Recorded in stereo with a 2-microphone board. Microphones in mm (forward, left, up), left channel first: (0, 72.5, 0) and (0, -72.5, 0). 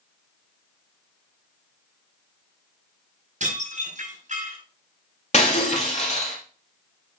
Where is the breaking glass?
50° left (ahead or behind), 2.5 m.